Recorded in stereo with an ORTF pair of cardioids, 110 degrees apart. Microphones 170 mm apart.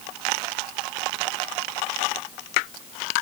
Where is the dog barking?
I don't hear a dog barking.